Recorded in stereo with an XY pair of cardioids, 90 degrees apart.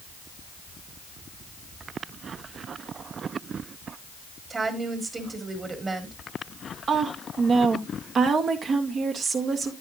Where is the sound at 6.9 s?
60° right, 2 m.